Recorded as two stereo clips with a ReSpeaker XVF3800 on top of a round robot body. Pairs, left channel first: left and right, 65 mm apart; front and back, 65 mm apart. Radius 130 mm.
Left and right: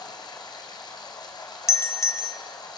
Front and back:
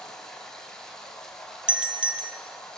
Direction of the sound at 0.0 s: 80° left.